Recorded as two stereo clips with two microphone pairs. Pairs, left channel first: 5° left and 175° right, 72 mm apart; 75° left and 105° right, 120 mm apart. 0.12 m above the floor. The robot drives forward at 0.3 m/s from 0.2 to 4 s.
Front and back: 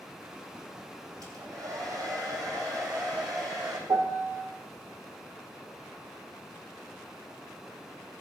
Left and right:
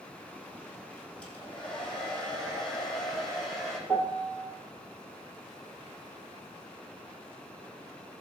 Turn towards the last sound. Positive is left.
turn(degrees=150)